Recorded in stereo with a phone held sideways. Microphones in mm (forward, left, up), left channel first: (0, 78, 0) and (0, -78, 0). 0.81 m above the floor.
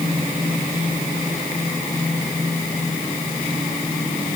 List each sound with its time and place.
Only background noise.